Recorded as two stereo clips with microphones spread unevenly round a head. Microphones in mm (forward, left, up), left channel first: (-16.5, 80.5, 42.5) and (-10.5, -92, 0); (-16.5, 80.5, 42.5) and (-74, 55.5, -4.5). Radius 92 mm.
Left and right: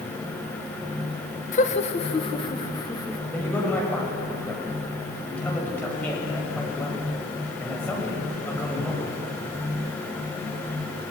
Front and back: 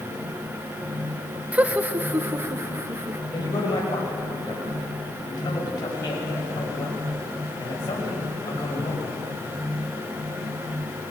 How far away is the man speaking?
About 6.5 m.